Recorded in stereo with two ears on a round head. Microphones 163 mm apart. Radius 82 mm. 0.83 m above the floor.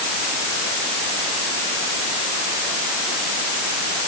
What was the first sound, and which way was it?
Only background noise.